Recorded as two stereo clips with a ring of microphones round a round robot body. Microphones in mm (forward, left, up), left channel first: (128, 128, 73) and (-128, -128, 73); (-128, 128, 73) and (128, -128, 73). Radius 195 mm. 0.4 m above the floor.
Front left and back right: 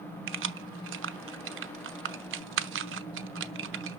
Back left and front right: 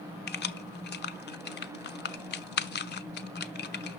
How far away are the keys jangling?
About 0.9 m.